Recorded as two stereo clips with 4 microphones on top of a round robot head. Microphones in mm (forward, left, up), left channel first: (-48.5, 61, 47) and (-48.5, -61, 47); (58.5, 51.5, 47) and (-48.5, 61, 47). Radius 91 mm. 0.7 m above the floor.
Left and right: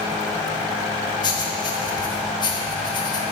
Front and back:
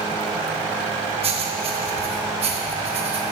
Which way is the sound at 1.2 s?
145° left.